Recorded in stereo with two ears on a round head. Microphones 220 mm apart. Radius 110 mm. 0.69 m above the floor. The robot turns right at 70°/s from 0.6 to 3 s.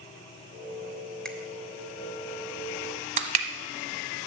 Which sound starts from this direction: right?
Crushing, at 3.2 s.